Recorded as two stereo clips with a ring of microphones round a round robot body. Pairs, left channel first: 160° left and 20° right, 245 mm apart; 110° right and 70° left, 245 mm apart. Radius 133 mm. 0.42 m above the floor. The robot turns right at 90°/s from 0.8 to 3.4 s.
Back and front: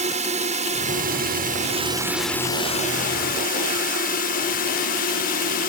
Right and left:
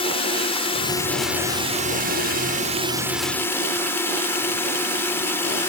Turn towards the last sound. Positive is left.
turn(degrees=175)